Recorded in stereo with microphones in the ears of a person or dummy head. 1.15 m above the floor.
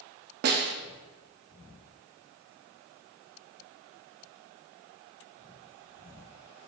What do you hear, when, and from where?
0.4 s a snare drum: 50° right (ahead or behind), 0.7 m